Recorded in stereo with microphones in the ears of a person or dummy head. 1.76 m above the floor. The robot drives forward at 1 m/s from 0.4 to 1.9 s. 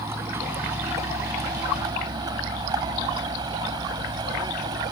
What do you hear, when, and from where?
0.0 s a vehicle: 20° right (ahead or behind); by 4.9 s 25° right (ahead or behind)